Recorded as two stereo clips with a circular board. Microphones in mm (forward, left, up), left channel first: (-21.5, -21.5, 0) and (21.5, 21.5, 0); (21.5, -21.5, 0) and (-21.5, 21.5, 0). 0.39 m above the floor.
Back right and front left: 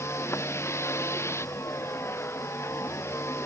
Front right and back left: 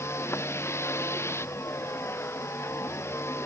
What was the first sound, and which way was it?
A vehicle, 95° right.